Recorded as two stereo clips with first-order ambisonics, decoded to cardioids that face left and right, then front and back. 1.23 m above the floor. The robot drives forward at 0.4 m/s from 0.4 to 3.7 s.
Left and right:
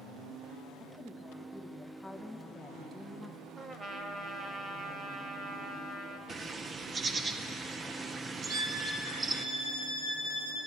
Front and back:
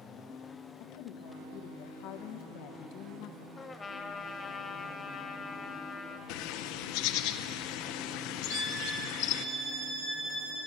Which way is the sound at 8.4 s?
130° right.